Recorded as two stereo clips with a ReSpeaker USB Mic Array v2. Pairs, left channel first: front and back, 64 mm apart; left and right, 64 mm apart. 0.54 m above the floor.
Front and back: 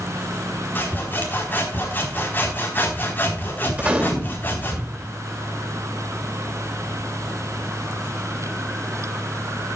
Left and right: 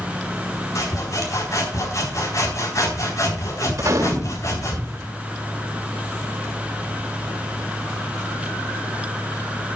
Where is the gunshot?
115° right, 2.5 m.